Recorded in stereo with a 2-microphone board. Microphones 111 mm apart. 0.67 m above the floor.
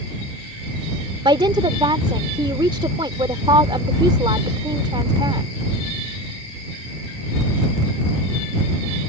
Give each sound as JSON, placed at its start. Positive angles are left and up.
{"t": 1.2, "sound": "a woman speaking", "side_deg": -50}